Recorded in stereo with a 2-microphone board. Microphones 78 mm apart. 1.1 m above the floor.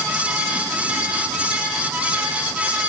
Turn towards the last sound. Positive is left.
No sound to turn to.